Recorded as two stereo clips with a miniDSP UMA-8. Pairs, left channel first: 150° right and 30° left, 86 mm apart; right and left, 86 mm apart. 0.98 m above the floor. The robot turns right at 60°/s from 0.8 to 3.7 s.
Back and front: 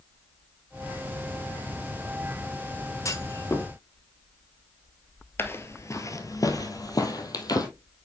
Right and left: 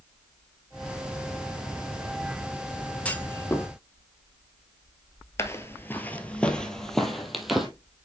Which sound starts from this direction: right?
Footsteps, at 5.4 s.